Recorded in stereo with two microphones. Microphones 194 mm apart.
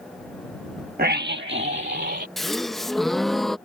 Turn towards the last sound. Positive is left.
turn(degrees=0)  # may be behind; listen again after turning